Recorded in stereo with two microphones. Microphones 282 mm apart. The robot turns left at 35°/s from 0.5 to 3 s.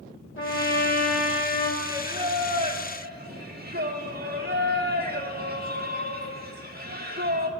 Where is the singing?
10° right, 1.0 m; by 7.5 s 55° right, 1.0 m.